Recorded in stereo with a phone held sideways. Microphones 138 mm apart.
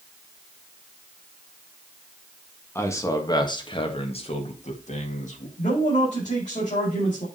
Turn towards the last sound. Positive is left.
turn(degrees=60)  # may be behind; listen again after turning